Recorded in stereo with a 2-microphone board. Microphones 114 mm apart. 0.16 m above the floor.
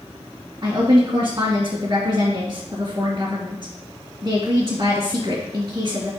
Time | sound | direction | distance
0.6 | a woman speaking | 40° right (ahead or behind) | 2 m